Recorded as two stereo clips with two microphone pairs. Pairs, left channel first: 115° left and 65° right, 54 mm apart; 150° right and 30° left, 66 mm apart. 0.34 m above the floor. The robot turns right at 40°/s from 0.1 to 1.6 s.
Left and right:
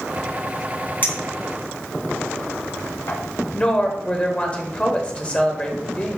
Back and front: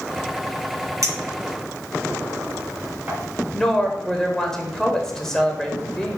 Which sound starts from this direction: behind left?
A woman speaking, at 3.5 s.